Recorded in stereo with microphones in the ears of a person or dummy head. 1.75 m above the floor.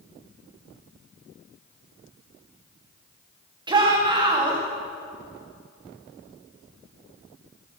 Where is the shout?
25° right (ahead or behind), 2 m.